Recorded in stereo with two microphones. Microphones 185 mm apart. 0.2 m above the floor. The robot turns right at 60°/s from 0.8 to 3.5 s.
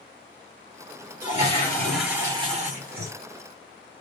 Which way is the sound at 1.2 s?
130° left.